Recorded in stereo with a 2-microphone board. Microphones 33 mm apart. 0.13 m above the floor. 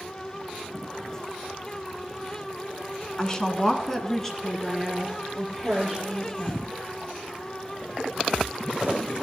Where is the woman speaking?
20° left (ahead or behind), 1.3 m; by 6.6 s centre (ahead or behind), 4.5 m.